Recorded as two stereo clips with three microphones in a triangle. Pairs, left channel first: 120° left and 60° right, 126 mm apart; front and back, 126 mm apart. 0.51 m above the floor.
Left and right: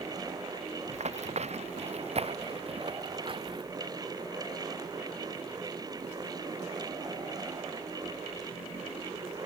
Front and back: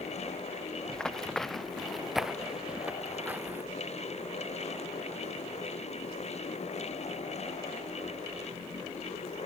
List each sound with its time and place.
0.9 s running footsteps: 85° right; by 3.6 s 105° right